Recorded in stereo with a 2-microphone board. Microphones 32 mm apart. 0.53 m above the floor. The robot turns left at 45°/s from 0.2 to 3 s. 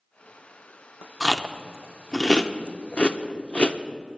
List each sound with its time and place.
1.2 s chewing: 5° right (ahead or behind), 0.6 m; by 3.8 s 40° left (ahead or behind), 0.6 m